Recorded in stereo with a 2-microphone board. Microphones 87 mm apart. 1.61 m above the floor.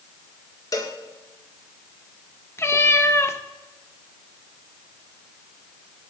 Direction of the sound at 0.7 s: 45° left (ahead or behind).